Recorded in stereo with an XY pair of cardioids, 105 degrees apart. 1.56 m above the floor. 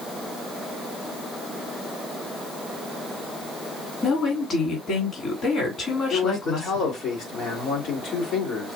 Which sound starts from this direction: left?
A man speaking, at 6.1 s.